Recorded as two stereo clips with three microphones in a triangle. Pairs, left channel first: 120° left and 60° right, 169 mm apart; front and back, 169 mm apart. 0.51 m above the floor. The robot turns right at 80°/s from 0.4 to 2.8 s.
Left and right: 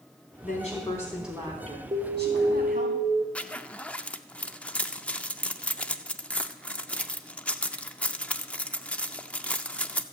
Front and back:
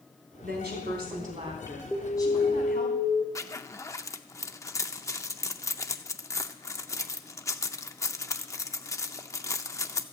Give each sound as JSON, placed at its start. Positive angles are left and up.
{"t": 0.4, "sound": "a woman speaking", "azimuth_deg": 150, "distance_m": 3.5}
{"t": 1.9, "sound": "an alarm", "azimuth_deg": -80, "distance_m": 1.8}
{"t": 3.4, "sound": "a zipper", "azimuth_deg": 45, "distance_m": 0.5}